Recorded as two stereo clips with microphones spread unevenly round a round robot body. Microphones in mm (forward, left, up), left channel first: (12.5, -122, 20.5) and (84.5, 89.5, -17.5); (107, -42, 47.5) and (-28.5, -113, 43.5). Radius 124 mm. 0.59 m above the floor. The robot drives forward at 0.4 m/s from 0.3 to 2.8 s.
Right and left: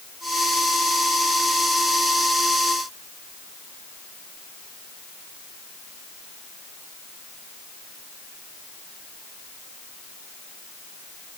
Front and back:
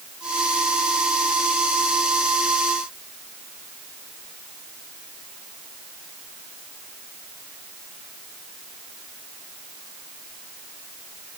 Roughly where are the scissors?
I don't hear scissors.